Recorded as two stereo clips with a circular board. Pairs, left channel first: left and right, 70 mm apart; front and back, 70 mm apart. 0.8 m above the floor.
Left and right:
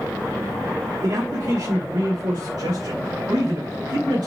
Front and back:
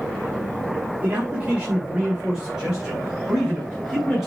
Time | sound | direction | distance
1.0 | a man speaking | 115° right | 1.8 m